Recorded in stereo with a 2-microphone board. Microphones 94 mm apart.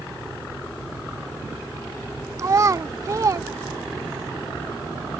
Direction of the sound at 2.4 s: 35° right (ahead or behind).